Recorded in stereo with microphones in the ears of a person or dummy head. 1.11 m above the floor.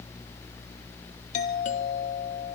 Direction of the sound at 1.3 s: 45° left (ahead or behind).